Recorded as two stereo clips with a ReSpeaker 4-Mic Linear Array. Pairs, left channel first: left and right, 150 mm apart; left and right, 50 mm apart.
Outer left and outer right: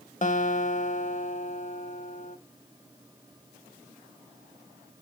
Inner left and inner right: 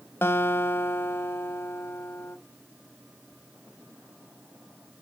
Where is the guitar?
55° left (ahead or behind), 0.6 m.